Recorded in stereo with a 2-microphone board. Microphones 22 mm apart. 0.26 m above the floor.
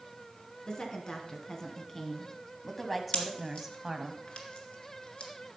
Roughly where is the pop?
Left.